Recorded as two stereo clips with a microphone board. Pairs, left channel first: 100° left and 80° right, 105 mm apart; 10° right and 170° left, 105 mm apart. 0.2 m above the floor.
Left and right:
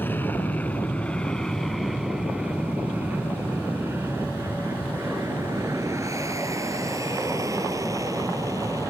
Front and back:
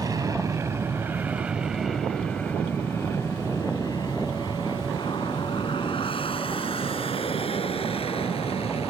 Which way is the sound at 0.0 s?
160° left.